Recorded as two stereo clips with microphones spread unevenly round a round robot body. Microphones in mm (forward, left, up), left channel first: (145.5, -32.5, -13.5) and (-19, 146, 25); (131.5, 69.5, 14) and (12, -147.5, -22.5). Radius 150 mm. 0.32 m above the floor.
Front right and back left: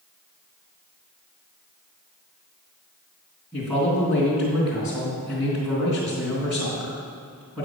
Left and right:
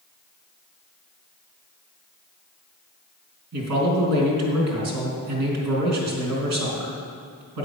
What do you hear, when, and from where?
3.5 s a man speaking: 135° right, 3 m